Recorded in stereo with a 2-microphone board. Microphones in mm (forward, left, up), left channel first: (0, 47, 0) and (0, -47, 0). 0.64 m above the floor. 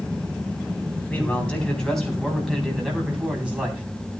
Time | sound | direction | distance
1.1 | a man speaking | 15° left (ahead or behind) | 4.5 m